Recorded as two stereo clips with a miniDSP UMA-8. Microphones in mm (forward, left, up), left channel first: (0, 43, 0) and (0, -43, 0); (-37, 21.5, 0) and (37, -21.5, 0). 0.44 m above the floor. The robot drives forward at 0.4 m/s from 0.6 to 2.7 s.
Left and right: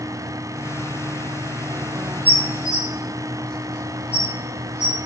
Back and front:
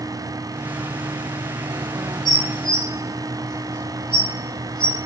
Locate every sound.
2.2 s dishes clattering: 140° left, 0.9 m; by 5.0 s 150° left, 1.0 m